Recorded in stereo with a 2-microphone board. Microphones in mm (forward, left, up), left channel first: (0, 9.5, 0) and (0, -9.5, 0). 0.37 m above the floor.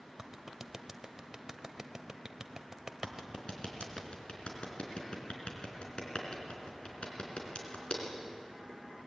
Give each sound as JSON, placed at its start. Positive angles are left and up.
{"t": 0.2, "sound": "a clap", "side_deg": -30, "distance_m": 1.2}
{"t": 3.0, "sound": "a clap", "side_deg": 70, "distance_m": 4.0}